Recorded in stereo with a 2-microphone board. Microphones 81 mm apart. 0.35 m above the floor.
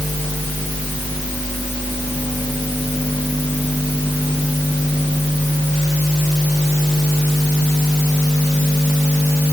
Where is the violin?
I don't hear a violin.